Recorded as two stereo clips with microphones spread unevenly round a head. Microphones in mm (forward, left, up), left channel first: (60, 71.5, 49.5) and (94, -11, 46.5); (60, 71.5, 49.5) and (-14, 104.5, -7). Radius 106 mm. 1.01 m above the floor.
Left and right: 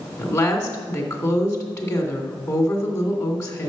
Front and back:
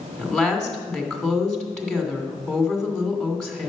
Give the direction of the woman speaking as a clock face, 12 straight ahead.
10 o'clock.